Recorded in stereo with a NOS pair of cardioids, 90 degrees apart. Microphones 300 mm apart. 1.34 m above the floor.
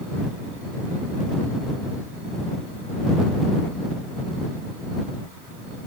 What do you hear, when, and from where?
Only background noise.